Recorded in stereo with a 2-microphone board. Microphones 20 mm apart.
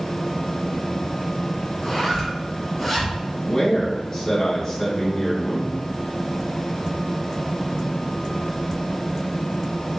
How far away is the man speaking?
About 1.4 m.